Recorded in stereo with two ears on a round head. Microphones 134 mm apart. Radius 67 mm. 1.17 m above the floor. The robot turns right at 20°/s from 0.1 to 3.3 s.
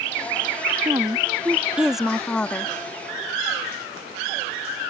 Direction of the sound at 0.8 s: 25° right.